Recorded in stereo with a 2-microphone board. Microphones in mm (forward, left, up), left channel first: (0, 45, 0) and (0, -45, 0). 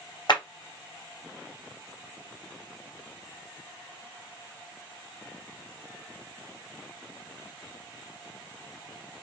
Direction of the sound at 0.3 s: 55° left (ahead or behind).